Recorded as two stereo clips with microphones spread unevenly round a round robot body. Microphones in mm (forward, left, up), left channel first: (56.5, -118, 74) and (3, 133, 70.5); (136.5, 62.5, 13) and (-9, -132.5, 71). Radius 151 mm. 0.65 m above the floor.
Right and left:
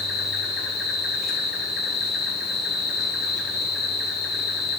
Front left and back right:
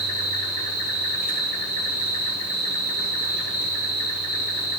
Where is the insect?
15° left, 3.5 m.